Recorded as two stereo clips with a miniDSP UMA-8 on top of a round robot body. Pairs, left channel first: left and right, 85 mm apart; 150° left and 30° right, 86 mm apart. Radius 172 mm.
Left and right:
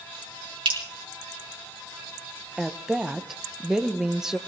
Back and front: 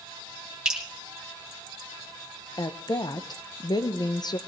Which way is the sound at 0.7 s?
110° right.